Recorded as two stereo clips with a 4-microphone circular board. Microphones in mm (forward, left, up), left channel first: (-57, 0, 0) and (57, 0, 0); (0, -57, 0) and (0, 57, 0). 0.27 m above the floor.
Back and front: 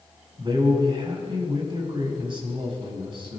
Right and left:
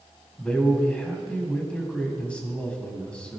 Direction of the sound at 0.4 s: 15° right.